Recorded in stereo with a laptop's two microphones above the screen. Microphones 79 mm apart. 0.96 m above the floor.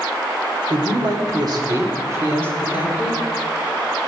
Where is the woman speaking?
80° right, 2 m; by 3.2 s 15° right (ahead or behind), 2.5 m.